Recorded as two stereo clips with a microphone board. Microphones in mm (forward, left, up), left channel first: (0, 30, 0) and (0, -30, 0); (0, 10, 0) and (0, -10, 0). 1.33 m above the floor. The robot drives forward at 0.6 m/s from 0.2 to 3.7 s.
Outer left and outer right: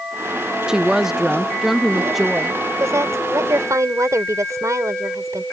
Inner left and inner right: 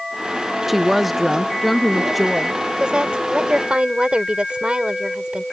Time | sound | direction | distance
0.7 | a woman speaking | 10° right (ahead or behind) | ?
2.8 | a woman speaking | 55° right (ahead or behind) | ?